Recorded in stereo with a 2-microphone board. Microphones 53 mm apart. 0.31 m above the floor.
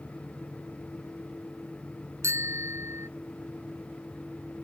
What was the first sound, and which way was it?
A bicycle bell, 65° right (ahead or behind).